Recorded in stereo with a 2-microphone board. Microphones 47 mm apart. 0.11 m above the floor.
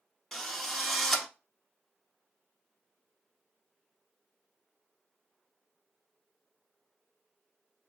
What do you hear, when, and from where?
0.3 s a drill: 10° left (ahead or behind), 0.9 m